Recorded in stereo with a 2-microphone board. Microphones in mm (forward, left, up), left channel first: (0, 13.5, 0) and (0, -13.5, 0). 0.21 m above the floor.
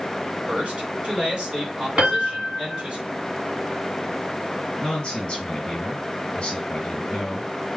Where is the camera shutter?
No camera shutter in this recording.